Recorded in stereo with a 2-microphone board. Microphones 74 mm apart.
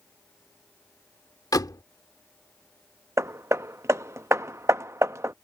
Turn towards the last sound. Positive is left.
turn(degrees=-40)  # may be behind; listen again after turning